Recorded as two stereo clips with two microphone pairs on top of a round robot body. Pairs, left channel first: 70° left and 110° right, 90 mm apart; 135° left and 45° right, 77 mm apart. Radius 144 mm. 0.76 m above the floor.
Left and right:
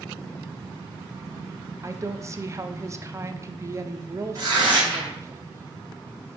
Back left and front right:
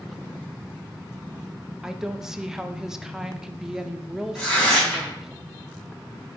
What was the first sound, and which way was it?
A woman speaking, 110° right.